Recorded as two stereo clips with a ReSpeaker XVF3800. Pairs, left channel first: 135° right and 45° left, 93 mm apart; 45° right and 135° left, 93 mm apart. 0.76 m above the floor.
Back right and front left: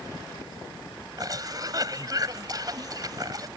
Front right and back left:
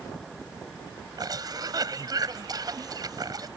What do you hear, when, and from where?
1.2 s a cough: 90° left